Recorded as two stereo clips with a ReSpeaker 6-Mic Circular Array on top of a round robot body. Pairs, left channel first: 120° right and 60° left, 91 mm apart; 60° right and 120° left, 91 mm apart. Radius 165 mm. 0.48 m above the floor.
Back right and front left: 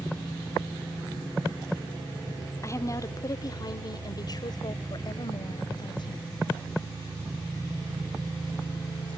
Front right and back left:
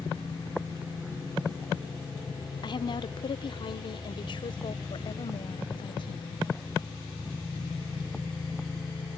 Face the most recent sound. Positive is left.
turn(degrees=-85)